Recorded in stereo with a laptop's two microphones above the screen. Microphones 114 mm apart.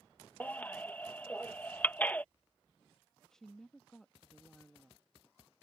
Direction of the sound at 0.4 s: 15° left (ahead or behind).